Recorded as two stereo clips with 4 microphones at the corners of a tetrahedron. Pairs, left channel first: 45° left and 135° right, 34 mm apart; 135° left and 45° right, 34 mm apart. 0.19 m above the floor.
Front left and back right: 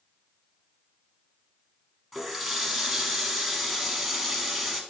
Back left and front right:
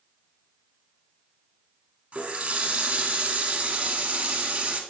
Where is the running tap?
45° right, 1.1 m.